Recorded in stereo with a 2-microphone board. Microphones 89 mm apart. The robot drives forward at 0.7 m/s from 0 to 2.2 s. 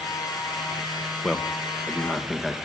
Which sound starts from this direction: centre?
A man speaking, at 1.2 s.